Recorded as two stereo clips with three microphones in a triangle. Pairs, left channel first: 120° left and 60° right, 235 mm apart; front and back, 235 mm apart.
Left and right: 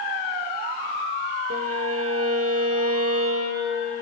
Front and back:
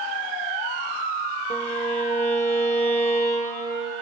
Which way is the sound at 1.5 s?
60° right.